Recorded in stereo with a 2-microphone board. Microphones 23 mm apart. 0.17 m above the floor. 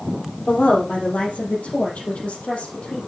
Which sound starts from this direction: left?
A woman speaking, at 0.5 s.